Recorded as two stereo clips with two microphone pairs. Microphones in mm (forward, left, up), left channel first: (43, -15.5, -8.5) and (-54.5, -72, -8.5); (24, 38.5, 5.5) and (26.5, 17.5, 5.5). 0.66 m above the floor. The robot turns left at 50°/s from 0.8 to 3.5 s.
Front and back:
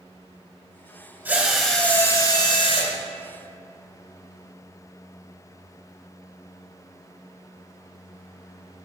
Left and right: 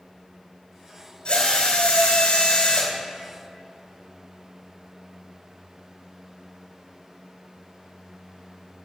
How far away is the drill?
About 2.5 m.